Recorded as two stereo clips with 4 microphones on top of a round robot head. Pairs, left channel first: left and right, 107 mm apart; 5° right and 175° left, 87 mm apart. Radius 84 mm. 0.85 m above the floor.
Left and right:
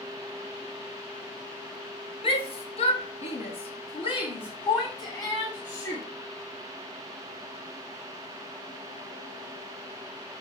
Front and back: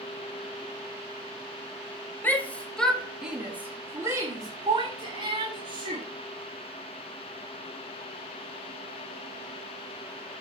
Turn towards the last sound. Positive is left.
turn(degrees=150)